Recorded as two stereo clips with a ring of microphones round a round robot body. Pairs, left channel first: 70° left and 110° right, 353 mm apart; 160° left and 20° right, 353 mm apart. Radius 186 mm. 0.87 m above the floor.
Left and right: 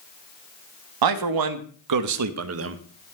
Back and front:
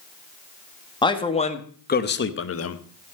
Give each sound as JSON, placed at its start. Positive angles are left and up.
{"t": 1.0, "sound": "a man speaking", "azimuth_deg": -125, "distance_m": 1.7}